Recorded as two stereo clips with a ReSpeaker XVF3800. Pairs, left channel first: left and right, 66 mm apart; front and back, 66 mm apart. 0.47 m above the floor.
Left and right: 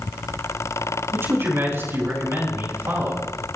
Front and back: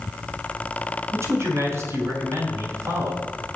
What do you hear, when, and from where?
1.1 s a man speaking: 135° right, 4.5 m